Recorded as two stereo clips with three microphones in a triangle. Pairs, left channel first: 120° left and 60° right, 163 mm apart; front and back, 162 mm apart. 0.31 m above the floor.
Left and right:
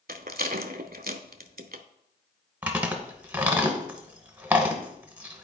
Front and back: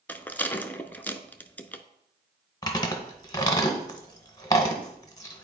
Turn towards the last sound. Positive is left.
turn(degrees=5)